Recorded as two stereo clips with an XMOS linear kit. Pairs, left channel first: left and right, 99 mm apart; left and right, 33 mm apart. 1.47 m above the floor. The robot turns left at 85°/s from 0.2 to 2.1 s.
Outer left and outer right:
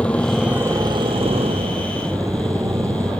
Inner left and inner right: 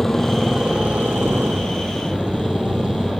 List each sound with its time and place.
0.0 s a motorcycle: 10° left; by 3.2 s 150° right